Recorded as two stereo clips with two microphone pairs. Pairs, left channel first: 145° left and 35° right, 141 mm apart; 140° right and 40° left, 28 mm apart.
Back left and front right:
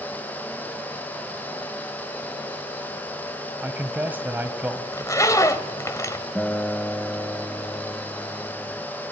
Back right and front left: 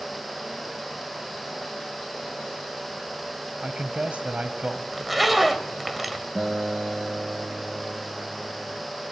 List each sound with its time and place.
3.6 s a man speaking: 35° left, 1.5 m
4.9 s a zipper: 120° left, 1.2 m
6.3 s a guitar: 70° left, 0.8 m